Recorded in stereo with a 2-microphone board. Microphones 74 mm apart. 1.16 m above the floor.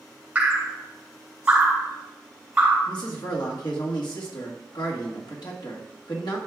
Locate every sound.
0.3 s dripping: 20° right (ahead or behind), 3 m
2.9 s a man speaking: 75° left (ahead or behind), 1.7 m